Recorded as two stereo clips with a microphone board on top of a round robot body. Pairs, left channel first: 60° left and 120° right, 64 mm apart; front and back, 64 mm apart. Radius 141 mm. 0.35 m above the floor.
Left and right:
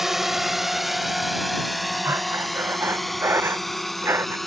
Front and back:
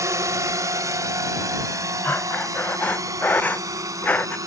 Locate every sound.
0.0 s a drone: 155° left; by 4.5 s 150° left
2.0 s breathing: 65° right